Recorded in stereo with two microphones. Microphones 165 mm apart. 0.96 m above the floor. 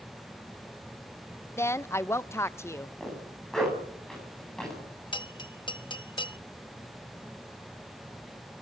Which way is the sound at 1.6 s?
15° left (ahead or behind).